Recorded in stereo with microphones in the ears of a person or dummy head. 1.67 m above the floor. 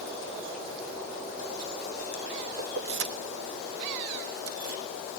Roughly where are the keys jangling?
Right.